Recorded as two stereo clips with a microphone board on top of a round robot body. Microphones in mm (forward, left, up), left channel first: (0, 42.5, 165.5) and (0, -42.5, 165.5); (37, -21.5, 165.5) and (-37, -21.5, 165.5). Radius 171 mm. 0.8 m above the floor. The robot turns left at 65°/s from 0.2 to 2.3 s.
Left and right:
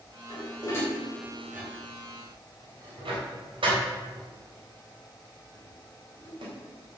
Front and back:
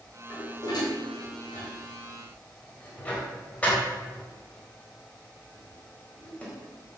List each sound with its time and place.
0.3 s dishes clattering: 60° left, 3.5 m; by 6.5 s 70° right, 3.5 m